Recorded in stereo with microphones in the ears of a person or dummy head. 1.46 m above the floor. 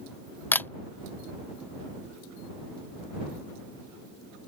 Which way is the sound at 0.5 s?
10° left (ahead or behind).